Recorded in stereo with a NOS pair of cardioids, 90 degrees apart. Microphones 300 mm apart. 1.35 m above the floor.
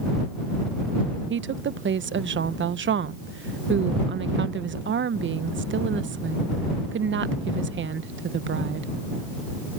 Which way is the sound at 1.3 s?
40° right.